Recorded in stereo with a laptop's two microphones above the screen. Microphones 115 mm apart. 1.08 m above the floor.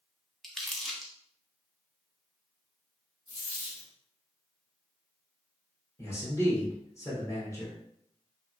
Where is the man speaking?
25° left (ahead or behind), 0.8 m.